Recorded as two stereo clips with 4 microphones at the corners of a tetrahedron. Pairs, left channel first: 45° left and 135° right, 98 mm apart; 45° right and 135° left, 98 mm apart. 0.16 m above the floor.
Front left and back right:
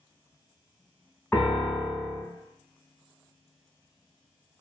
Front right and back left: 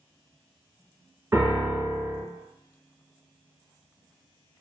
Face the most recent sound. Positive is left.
turn(degrees=100)